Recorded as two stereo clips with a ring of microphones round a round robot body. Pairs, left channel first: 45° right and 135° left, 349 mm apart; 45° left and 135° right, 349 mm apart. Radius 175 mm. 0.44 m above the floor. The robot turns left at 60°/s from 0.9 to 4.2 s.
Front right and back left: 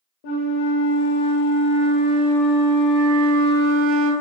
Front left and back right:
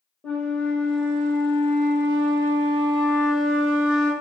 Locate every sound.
0.2 s a flute: 40° right, 0.7 m; by 4.1 s 125° left, 0.7 m